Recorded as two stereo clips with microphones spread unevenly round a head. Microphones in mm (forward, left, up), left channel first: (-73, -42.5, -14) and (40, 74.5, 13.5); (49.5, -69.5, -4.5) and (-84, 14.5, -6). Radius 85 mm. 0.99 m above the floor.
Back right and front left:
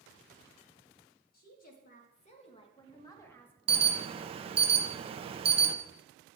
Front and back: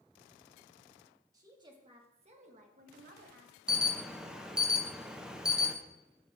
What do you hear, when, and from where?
1.3 s a woman speaking: 145° right, 1.5 m; by 3.5 s 150° left, 1.3 m
3.7 s an alarm: 70° left, 0.6 m